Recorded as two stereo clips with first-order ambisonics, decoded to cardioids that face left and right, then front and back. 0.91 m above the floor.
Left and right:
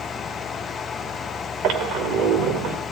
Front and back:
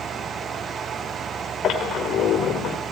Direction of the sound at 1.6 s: 50° right.